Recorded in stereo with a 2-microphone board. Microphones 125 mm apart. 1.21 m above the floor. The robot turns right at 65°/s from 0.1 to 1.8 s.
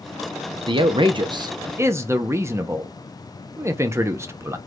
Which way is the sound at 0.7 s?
110° right.